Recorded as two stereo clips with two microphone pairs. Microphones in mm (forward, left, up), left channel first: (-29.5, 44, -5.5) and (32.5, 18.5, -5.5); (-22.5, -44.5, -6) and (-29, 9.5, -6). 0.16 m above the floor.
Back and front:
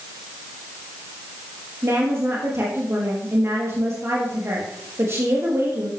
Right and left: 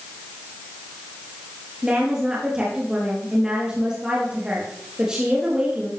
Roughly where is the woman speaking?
Ahead left.